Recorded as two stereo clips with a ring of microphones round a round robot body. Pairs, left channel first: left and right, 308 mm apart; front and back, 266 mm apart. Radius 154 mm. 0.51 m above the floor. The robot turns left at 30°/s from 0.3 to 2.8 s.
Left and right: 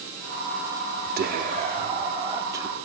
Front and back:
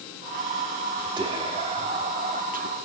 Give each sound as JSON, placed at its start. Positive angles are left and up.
{"t": 1.2, "sound": "whispering", "azimuth_deg": -120, "distance_m": 0.7}